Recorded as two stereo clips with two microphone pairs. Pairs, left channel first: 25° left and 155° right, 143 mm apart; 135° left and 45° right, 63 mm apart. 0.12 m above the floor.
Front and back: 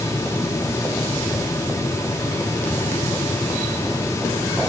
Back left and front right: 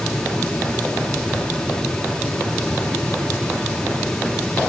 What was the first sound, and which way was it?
Only background noise.